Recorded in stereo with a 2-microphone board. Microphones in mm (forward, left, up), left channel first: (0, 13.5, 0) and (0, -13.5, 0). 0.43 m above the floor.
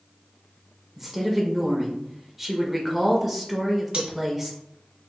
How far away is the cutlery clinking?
About 1.2 m.